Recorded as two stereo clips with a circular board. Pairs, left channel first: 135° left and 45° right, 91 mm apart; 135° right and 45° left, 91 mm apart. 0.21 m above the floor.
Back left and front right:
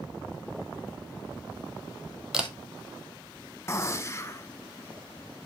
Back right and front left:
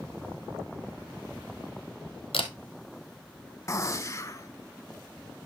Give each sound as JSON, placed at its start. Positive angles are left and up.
{"t": 2.3, "sound": "a camera shutter", "azimuth_deg": -125, "distance_m": 1.3}
{"t": 3.7, "sound": "a gunshot", "azimuth_deg": 180, "distance_m": 0.6}